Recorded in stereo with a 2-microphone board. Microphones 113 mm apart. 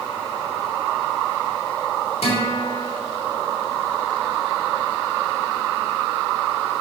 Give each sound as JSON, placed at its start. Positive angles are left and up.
{"t": 2.2, "sound": "a guitar", "side_deg": 65, "distance_m": 3.0}